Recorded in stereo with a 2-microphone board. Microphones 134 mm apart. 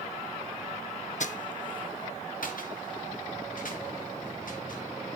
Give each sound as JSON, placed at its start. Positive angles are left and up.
{"t": 1.2, "sound": "footsteps", "side_deg": 65, "distance_m": 0.6}